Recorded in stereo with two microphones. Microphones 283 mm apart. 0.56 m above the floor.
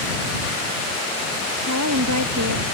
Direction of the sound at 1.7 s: 80° right.